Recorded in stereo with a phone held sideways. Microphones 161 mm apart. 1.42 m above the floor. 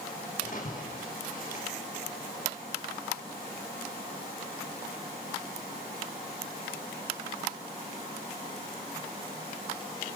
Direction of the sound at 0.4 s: 55° left (ahead or behind).